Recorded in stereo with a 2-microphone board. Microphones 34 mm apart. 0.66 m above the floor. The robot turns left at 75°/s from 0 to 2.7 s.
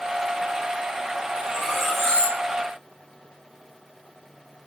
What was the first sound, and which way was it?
Cutlery clinking, 150° right.